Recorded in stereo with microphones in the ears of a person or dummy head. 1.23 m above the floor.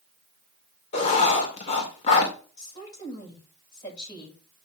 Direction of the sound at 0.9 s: 35° left (ahead or behind).